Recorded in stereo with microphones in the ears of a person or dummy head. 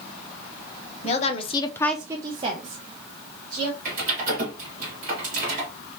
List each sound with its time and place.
1.0 s a woman speaking: 35° left (ahead or behind), 0.9 m; by 3.7 s 35° right (ahead or behind), 1.9 m
3.9 s typing on a keyboard: 40° right (ahead or behind), 1.6 m